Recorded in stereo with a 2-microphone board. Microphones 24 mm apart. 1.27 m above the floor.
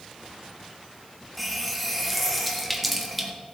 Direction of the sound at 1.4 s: 5° right (ahead or behind).